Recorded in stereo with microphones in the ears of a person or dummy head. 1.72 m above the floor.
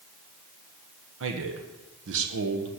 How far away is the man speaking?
About 1.4 m.